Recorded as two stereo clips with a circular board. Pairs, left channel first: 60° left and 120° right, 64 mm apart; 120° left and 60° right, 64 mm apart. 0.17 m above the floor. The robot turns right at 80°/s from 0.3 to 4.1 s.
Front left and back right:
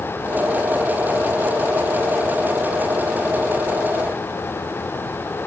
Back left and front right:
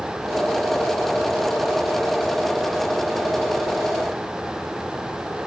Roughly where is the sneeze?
No sneeze in this recording.